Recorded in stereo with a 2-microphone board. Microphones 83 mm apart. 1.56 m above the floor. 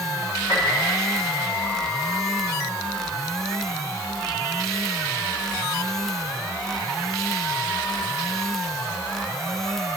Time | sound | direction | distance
0.5 | a piano | 40° left (ahead or behind) | 4 m